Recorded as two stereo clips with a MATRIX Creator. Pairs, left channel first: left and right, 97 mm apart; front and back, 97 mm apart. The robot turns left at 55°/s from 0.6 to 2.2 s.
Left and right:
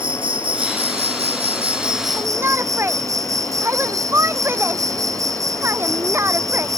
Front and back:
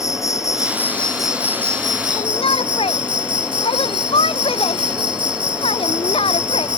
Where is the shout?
20° right; by 6.7 s 25° right.